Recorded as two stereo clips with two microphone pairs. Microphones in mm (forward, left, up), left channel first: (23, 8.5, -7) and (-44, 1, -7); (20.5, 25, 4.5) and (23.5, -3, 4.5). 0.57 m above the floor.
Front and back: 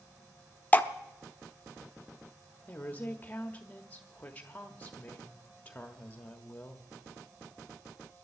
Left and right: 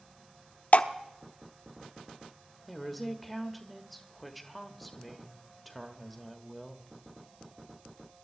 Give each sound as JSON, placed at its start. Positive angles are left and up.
{"t": 0.7, "sound": "dripping", "azimuth_deg": 70, "distance_m": 0.6}
{"t": 2.7, "sound": "a woman speaking", "azimuth_deg": 10, "distance_m": 1.2}